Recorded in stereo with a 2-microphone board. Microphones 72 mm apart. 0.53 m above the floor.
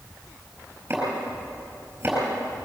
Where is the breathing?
No breathing in this recording.